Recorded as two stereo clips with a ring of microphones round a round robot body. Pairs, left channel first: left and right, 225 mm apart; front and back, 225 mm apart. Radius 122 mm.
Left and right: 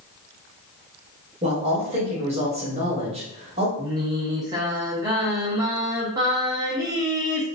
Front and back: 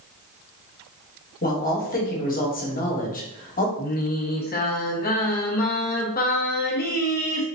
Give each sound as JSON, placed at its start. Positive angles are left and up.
{"t": 1.4, "sound": "a man speaking", "azimuth_deg": -35, "distance_m": 1.2}
{"t": 3.8, "sound": "singing", "azimuth_deg": -20, "distance_m": 0.9}